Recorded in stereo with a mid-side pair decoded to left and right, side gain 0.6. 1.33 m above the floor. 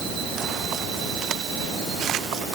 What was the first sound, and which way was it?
Only background noise.